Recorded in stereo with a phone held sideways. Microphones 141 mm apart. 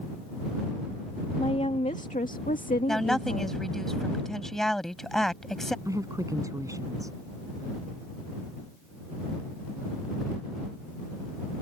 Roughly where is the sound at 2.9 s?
Centre.